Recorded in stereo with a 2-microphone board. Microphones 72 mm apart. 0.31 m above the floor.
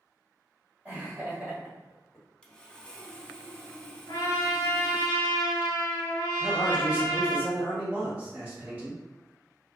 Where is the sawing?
10° left (ahead or behind), 0.5 m.